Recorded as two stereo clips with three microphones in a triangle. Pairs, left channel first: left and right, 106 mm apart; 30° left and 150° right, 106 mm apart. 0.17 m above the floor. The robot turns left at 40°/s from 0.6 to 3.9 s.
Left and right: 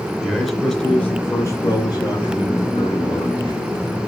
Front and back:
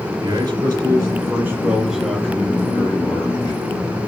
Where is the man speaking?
175° left, 1.9 m; by 3.6 s 55° left, 1.9 m.